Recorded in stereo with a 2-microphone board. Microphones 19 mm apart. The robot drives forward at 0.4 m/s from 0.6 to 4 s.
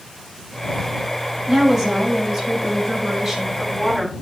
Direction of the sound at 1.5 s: 25° right (ahead or behind).